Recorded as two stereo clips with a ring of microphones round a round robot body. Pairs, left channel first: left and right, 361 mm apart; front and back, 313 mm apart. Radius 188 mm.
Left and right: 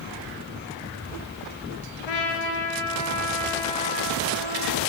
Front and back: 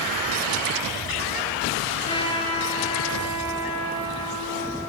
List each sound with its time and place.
2.1 s a trumpet: 75° left, 4.5 m